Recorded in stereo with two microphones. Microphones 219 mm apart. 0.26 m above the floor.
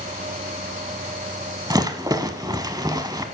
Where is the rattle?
15° right (ahead or behind), 0.6 m.